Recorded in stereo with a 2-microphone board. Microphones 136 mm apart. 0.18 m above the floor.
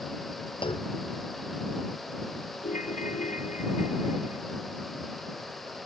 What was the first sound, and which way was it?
A clunk, 40° left (ahead or behind).